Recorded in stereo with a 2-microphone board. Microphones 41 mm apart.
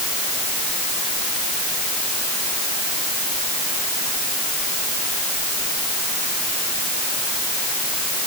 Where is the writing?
I don't hear writing.